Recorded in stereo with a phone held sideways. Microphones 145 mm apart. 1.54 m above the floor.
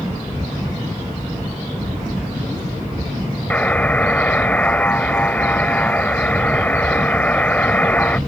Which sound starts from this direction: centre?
A buzzer, at 3.5 s.